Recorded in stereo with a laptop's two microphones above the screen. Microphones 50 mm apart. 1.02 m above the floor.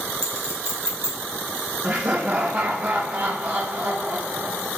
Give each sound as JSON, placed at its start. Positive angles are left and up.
{"t": 0.2, "sound": "a clink", "side_deg": -60, "distance_m": 1.9}
{"t": 1.8, "sound": "laughter", "side_deg": -45, "distance_m": 1.1}